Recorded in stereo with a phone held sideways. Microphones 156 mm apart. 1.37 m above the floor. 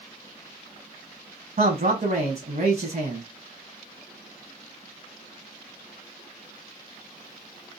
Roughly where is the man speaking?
Right.